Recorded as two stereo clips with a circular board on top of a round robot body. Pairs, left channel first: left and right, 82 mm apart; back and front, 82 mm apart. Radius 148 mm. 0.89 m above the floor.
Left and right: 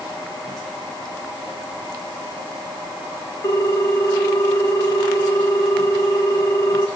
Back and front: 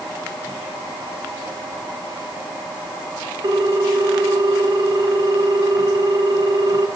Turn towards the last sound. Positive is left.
turn(degrees=40)